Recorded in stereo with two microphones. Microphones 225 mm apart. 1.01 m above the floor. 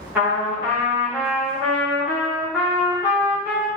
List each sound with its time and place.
0.1 s a trumpet: 10° right (ahead or behind), 0.9 m